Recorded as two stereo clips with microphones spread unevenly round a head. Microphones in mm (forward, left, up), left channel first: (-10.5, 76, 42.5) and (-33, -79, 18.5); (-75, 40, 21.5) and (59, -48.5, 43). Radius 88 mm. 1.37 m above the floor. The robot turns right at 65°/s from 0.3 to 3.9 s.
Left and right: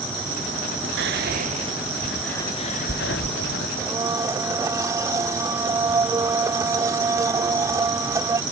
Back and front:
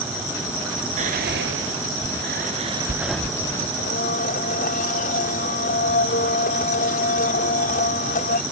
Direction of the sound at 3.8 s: Straight behind.